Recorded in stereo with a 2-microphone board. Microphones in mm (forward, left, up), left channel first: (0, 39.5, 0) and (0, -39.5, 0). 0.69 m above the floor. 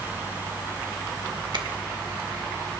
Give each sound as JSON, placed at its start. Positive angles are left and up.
{"t": 1.5, "sound": "a finger snap", "side_deg": -75, "distance_m": 1.6}